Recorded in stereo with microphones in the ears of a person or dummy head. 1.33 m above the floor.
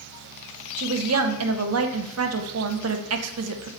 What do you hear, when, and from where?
0.8 s a woman speaking: 85° right, 0.8 m